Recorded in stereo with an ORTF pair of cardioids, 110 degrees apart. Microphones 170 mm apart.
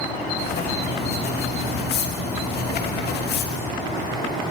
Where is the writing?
65° left, 3 m.